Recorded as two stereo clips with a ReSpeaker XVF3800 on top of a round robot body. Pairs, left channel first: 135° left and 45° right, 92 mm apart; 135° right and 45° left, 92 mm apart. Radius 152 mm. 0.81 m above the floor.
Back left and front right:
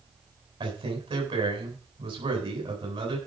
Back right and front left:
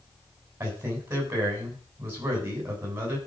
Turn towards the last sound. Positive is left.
turn(degrees=-25)